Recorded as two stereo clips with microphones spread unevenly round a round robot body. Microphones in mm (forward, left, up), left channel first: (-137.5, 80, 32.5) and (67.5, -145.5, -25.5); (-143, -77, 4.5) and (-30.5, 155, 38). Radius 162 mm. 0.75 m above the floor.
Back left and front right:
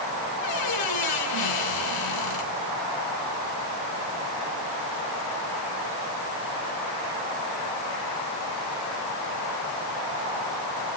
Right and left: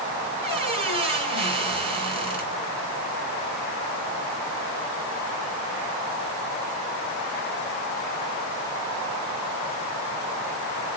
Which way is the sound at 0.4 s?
130° left.